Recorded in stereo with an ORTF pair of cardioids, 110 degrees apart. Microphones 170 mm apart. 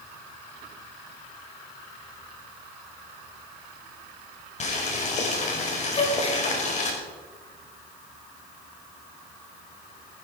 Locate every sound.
4.6 s boiling: 45° left, 4.5 m
5.9 s a gasp: 35° left, 3.5 m